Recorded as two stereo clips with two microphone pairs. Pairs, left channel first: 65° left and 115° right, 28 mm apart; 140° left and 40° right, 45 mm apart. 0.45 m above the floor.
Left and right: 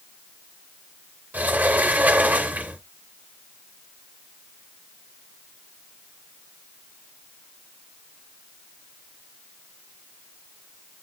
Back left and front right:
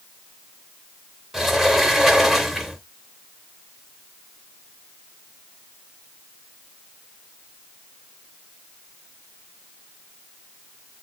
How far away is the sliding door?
About 0.7 m.